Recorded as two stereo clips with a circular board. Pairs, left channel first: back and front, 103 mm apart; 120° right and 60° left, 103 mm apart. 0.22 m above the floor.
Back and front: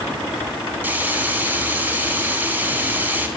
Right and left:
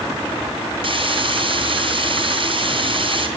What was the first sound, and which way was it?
Frying, 65° left.